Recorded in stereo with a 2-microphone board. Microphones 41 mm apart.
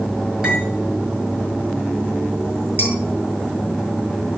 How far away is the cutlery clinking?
About 5 m.